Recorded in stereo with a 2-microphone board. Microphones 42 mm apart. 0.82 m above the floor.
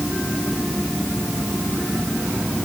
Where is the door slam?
I don't hear a door slam.